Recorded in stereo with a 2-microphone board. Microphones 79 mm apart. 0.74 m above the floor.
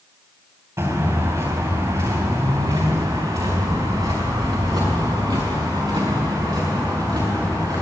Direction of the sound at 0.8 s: 45° right (ahead or behind).